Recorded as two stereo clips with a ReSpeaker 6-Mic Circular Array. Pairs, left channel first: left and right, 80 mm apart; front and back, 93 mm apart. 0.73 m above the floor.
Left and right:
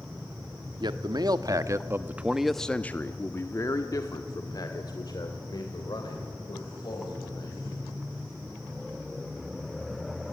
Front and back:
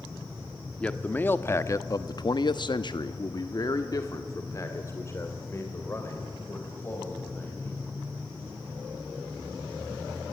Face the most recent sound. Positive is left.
turn(degrees=65)